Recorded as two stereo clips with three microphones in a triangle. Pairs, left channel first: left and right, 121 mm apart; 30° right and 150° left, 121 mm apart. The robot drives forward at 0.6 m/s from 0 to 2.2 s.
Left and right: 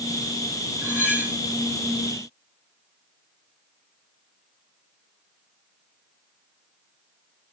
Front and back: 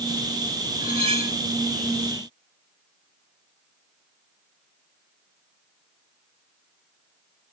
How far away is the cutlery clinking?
About 3 m.